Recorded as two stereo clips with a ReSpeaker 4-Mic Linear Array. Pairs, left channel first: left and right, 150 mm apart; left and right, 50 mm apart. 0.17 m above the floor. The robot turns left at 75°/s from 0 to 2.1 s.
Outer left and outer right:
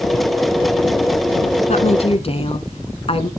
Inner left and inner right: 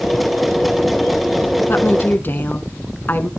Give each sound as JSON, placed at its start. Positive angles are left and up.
{"t": 1.7, "sound": "a woman speaking", "azimuth_deg": 95, "distance_m": 1.4}